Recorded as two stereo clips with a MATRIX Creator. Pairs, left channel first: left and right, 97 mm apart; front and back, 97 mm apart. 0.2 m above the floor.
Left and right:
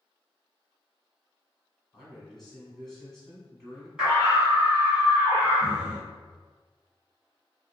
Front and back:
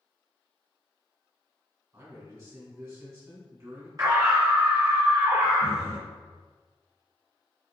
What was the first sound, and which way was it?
A man speaking, 175° left.